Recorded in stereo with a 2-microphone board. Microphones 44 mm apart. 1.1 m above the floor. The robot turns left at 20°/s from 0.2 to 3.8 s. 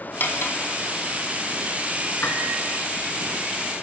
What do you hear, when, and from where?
0.2 s cutlery clinking: 50° left (ahead or behind), 3 m; by 0.6 s 60° left (ahead or behind), 3 m
2.2 s a piano: 55° left (ahead or behind), 3.5 m; by 2.5 s 50° left (ahead or behind), 3.5 m